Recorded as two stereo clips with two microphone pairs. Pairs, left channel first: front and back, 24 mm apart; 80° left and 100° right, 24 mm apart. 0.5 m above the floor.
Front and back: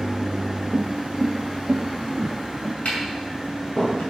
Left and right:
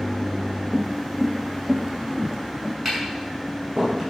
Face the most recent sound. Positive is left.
turn(degrees=-20)